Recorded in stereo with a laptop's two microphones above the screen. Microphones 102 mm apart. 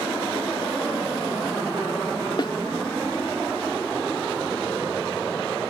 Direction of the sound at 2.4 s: 50° left (ahead or behind).